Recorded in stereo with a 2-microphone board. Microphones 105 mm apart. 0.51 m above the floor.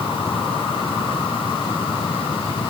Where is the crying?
No crying in this recording.